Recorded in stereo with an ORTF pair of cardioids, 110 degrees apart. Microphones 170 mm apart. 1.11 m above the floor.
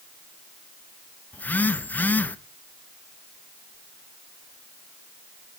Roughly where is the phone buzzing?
Ahead.